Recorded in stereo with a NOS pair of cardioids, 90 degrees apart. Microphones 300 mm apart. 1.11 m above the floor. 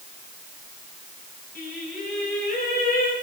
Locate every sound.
1.6 s singing: 30° left, 3.5 m